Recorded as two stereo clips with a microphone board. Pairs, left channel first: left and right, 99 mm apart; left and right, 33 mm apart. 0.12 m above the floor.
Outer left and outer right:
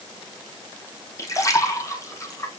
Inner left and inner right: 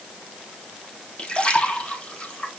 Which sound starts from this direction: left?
A splash, at 1.2 s.